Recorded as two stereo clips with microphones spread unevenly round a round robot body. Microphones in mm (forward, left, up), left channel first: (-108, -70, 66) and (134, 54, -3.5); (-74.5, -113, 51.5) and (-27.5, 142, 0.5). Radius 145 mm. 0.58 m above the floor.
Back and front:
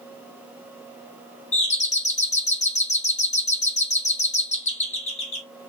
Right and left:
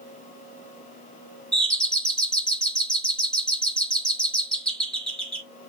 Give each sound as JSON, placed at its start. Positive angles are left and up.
{"t": 1.5, "sound": "a doorbell", "azimuth_deg": 145, "distance_m": 1.5}